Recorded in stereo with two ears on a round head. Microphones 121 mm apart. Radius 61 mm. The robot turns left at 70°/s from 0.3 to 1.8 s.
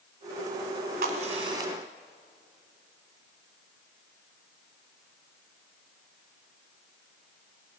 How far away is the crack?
About 1.9 m.